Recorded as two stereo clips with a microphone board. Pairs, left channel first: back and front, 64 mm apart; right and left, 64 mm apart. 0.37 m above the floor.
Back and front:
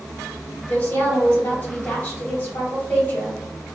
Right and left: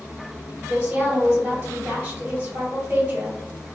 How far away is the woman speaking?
About 1.5 m.